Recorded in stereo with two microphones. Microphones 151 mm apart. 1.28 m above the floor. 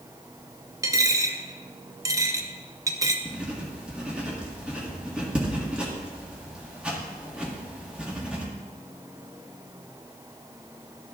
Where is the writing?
5° right (ahead or behind), 1.7 m.